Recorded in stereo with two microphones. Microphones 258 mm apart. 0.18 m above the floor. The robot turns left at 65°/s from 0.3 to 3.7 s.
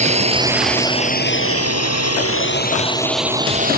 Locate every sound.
0.0 s a drone: 25° right (ahead or behind); by 3.8 s 35° right (ahead or behind)